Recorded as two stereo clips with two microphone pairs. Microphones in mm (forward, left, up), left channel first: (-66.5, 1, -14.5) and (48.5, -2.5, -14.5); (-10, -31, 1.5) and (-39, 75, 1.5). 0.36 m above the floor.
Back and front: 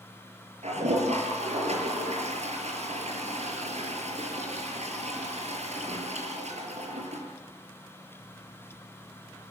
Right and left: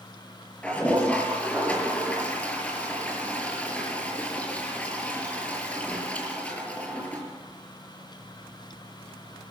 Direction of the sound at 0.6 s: 5° left.